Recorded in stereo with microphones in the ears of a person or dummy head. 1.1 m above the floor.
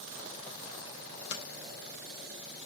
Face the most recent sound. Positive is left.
turn(degrees=70)  # may be behind; listen again after turning